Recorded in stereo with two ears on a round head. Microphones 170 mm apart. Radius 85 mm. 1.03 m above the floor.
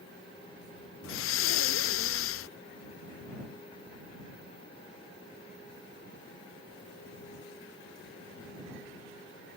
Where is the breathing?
75° left (ahead or behind).